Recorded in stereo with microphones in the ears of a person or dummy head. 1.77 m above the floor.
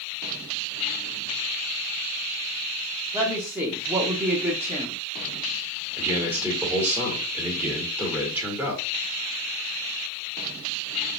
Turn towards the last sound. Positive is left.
turn(degrees=-15)  # may be behind; listen again after turning